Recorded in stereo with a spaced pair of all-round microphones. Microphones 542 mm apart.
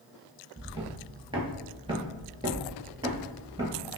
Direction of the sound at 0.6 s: 10° right (ahead or behind).